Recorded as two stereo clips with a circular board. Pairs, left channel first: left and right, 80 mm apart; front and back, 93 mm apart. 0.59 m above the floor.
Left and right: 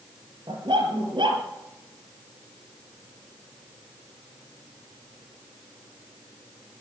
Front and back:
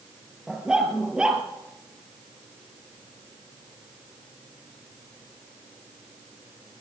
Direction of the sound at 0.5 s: 100° right.